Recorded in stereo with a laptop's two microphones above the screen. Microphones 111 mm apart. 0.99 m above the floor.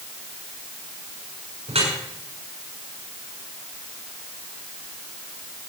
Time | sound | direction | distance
1.7 | dripping | 70° right (ahead or behind) | 6 m